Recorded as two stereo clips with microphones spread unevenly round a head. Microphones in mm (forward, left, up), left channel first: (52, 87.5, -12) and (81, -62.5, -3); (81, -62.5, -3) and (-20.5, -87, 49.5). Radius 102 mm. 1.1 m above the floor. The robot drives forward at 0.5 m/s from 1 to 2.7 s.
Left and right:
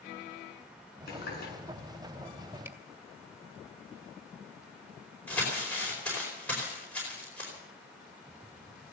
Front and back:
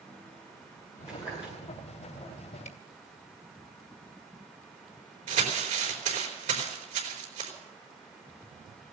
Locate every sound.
1.1 s a running tap: 85° left, 8 m; by 1.5 s 90° left, 8 m
2.6 s a camera shutter: 5° right, 2 m
5.3 s crumpling: 175° right, 4.5 m